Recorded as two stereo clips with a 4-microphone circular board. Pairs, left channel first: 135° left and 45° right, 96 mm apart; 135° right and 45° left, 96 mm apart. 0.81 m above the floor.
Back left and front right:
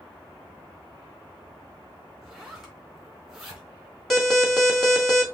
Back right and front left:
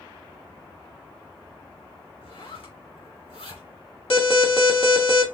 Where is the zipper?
135° right, 2.5 m.